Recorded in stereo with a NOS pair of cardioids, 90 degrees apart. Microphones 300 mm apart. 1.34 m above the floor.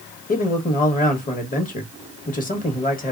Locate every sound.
0.3 s a man speaking: 25° left, 1.3 m